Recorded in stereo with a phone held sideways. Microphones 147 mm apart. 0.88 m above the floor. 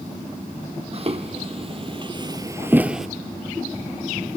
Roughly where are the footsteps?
Right.